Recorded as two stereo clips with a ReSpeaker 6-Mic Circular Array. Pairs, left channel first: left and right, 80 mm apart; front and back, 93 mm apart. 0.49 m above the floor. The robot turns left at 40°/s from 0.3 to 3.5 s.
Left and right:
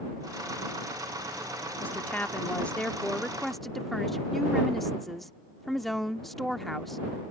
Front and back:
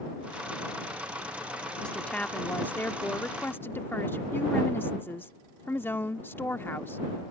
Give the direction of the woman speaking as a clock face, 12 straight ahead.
10 o'clock.